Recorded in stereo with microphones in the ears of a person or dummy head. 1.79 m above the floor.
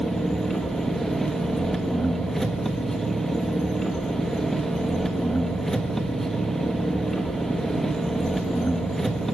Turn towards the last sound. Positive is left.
turn(degrees=5)  # may be behind; listen again after turning